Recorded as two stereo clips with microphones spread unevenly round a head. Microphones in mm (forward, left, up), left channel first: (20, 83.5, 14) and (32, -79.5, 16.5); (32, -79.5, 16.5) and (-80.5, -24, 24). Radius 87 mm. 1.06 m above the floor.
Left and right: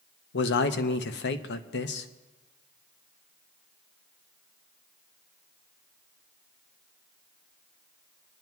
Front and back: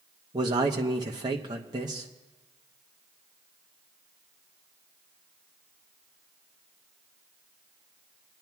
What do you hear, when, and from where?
0.3 s a man speaking: 90° left, 0.8 m